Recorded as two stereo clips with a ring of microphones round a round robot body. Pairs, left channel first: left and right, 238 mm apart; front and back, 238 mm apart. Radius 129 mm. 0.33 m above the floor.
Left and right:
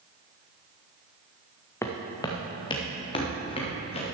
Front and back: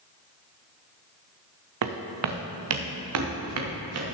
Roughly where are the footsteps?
Behind.